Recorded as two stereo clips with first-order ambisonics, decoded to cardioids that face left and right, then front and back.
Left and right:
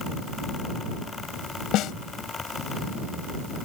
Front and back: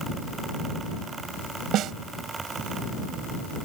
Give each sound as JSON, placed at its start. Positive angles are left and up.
{"t": 1.7, "sound": "a snare drum", "azimuth_deg": 135}